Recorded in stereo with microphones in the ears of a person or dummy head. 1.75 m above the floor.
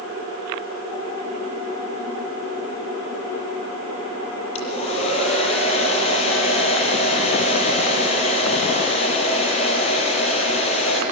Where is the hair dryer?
35° left (ahead or behind), 7 m.